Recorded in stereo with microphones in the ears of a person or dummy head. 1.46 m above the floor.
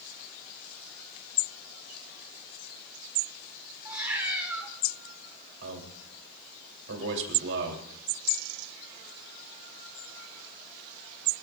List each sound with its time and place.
3.9 s a cat meowing: 10° right (ahead or behind), 1.2 m
5.6 s a man speaking: 75° right (ahead or behind), 3.5 m